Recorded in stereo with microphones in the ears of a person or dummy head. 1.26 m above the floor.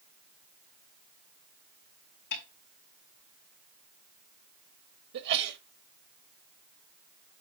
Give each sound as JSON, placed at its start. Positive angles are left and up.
{"t": 2.3, "sound": "a snare drum", "side_deg": 60, "distance_m": 3.0}
{"t": 5.1, "sound": "a sneeze", "side_deg": -60, "distance_m": 1.5}